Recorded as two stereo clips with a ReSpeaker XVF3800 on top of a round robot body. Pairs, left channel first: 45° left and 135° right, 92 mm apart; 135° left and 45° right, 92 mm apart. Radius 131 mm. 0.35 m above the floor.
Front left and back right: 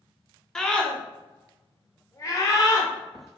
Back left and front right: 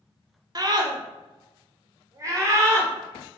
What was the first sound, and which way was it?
A scream, 35° right.